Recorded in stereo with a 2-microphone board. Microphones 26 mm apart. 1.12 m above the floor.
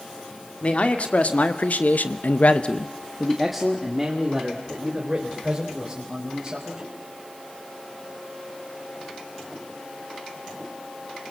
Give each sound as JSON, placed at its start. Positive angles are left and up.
{"t": 0.6, "sound": "a man speaking", "side_deg": 50, "distance_m": 2.5}